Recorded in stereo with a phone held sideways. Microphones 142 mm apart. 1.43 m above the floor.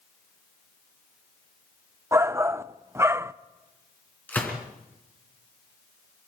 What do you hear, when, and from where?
2.1 s a shout: 15° right (ahead or behind), 0.5 m
4.3 s a gunshot: 10° left (ahead or behind), 3.5 m